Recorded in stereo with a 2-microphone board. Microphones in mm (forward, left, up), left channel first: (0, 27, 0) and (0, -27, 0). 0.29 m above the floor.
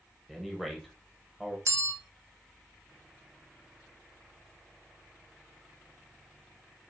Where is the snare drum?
I don't hear a snare drum.